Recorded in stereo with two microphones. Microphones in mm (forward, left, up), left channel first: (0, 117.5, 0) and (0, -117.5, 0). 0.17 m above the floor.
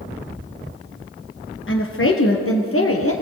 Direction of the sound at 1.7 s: 60° left (ahead or behind).